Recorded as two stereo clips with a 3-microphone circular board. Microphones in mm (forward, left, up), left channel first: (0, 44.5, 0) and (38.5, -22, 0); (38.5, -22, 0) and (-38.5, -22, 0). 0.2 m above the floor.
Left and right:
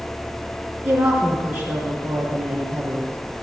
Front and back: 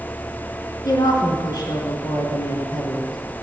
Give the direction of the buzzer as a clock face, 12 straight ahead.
No buzzer in this recording.